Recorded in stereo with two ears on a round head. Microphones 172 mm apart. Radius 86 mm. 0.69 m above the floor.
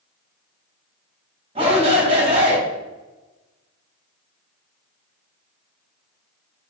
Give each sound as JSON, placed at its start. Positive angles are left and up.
{"t": 1.6, "sound": "a shout", "side_deg": -30, "distance_m": 3.0}